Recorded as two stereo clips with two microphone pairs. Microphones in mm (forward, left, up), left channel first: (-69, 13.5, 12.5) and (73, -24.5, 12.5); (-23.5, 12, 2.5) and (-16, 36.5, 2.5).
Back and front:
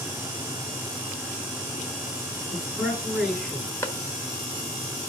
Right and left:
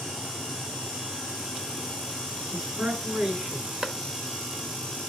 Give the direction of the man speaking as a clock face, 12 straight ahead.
9 o'clock.